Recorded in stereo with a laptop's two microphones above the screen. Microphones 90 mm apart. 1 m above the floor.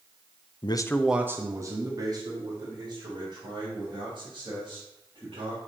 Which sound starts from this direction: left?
A man speaking, at 0.6 s.